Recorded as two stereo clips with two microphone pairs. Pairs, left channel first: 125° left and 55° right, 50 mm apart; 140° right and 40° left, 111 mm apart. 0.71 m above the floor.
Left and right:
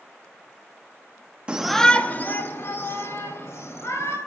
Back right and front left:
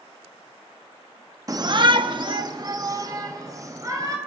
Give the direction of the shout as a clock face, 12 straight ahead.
12 o'clock.